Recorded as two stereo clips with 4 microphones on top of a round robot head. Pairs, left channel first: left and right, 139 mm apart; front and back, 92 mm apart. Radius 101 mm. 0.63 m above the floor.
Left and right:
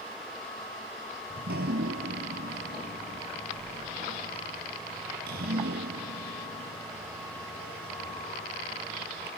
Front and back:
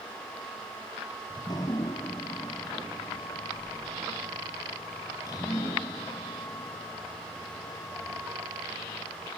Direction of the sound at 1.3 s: 65° right.